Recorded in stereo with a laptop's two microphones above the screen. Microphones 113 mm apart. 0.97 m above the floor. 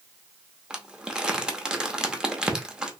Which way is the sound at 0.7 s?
10° right (ahead or behind).